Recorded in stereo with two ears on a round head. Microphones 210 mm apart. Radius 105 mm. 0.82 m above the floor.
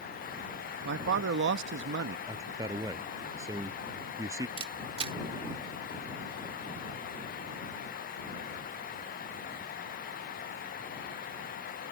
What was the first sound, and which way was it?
A man speaking, 50° right (ahead or behind).